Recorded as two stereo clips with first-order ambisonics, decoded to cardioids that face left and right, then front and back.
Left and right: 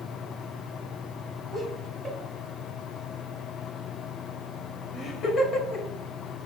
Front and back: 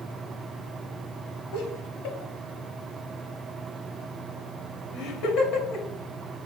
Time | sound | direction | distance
1.5 | laughter | 10° right | 3.5 m